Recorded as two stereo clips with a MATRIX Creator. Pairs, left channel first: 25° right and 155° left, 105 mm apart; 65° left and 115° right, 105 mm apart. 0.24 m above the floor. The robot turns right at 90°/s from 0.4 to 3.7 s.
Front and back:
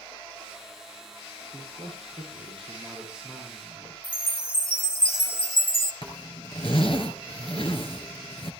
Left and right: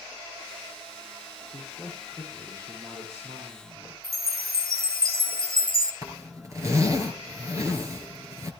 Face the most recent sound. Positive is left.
turn(degrees=-55)